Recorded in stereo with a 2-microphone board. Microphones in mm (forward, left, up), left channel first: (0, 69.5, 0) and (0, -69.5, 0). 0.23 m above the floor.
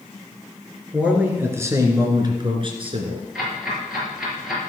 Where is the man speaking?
10° right (ahead or behind), 2.5 m; by 3.2 s 50° right (ahead or behind), 2.5 m.